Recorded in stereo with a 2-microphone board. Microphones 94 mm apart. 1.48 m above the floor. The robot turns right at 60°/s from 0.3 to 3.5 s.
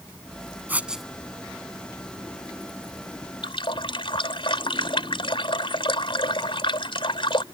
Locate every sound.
0.7 s writing: 20° right (ahead or behind); by 1.1 s centre (ahead or behind)
3.4 s a running tap: 65° left (ahead or behind); by 7.4 s 70° left (ahead or behind)